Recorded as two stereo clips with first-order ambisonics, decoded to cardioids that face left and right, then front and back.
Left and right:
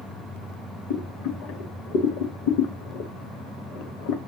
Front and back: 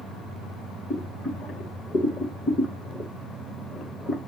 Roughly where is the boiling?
Left.